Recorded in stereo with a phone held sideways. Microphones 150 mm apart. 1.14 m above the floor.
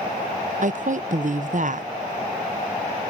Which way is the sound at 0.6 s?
55° right (ahead or behind).